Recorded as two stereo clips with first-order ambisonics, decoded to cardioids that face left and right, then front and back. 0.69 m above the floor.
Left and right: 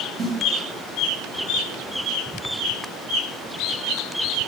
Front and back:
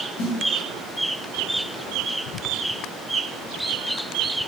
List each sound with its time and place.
0.2 s a snare drum: 30° right, 4 m